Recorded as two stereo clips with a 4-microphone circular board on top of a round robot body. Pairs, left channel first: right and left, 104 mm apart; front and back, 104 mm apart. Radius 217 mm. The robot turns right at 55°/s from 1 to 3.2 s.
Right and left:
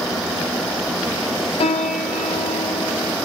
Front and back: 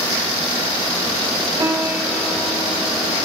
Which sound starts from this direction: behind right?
A piano, at 1.6 s.